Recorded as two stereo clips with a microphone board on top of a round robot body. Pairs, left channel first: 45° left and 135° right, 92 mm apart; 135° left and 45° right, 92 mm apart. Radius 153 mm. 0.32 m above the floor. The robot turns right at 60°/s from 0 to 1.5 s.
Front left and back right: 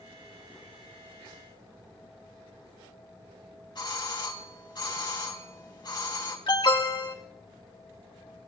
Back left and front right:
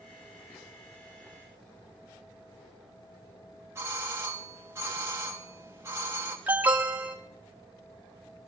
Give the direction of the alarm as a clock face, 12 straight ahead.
11 o'clock.